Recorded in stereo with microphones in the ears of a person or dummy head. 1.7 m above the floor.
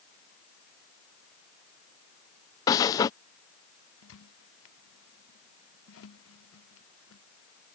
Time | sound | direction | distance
2.7 | breathing | 20° left (ahead or behind) | ?
4.0 | a squeak | 80° left | ?